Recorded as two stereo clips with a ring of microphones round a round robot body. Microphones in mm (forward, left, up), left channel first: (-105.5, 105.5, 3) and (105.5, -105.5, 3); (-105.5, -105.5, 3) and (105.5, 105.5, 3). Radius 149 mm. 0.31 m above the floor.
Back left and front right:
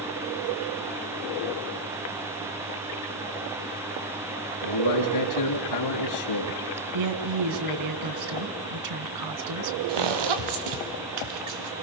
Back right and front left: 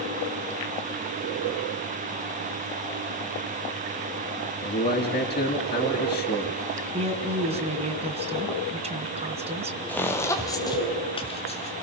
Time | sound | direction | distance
4.6 | a man speaking | 155° left | 3.5 m
6.9 | a woman speaking | 25° right | 2.5 m
9.9 | footsteps | 50° right | 3 m